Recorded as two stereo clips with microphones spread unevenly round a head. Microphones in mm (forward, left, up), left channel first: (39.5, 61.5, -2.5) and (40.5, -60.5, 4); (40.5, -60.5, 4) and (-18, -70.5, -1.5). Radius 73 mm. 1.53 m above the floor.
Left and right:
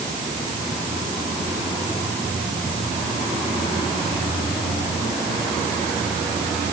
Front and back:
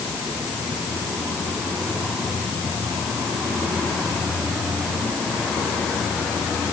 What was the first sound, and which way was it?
Only background noise.